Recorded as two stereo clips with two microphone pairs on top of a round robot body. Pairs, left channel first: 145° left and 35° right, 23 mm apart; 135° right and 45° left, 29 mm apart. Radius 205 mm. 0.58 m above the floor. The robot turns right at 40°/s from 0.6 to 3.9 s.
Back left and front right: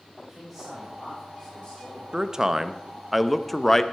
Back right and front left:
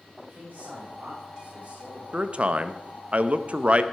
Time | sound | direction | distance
0.2 | a man speaking | 45° left | 5.5 m
2.1 | a man speaking | 10° left | 1.0 m